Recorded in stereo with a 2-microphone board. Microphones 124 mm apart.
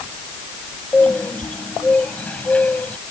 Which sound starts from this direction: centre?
A bird, at 0.9 s.